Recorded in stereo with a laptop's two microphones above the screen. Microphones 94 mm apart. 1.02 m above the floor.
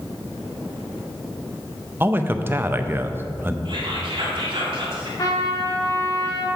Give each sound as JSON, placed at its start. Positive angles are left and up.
{"t": 2.0, "sound": "a man speaking", "side_deg": -25, "distance_m": 0.6}
{"t": 3.6, "sound": "whispering", "side_deg": -65, "distance_m": 2.0}
{"t": 5.2, "sound": "a trumpet", "side_deg": 45, "distance_m": 1.4}